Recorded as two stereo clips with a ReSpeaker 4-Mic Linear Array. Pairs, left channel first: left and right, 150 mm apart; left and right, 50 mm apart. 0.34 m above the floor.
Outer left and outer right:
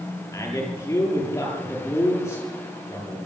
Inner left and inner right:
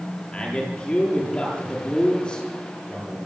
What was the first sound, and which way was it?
A man speaking, 20° left (ahead or behind).